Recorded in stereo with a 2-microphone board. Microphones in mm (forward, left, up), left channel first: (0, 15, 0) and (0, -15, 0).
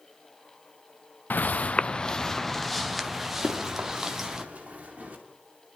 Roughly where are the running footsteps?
Right.